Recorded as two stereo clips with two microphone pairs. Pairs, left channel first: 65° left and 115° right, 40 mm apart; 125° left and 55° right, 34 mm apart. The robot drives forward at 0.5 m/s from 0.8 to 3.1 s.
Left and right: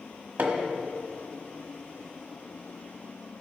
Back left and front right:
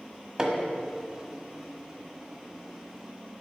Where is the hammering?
120° right, 1.3 m.